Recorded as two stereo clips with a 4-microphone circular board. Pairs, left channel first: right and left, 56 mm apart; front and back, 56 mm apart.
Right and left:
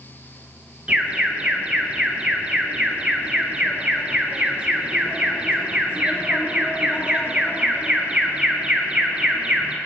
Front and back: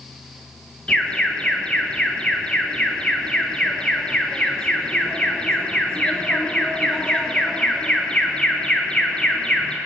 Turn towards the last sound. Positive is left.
turn(degrees=45)